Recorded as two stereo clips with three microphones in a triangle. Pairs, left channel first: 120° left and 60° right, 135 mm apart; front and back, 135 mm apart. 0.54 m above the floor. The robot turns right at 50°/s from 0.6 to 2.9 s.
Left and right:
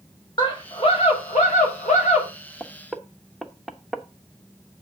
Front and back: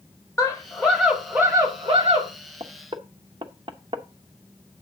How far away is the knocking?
About 0.9 m.